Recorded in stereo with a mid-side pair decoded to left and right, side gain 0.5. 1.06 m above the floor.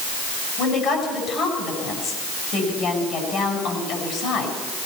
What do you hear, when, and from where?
0.6 s a woman speaking: 60° left, 9.5 m